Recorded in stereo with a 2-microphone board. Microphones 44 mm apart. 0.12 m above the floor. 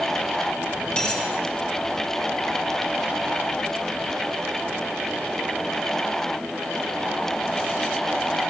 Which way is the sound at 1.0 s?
20° left (ahead or behind).